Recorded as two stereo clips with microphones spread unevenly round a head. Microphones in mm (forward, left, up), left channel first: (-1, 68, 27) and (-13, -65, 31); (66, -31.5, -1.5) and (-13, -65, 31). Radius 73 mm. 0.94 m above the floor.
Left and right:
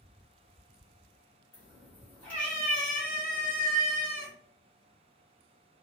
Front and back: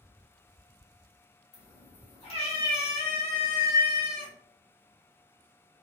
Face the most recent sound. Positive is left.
turn(degrees=5)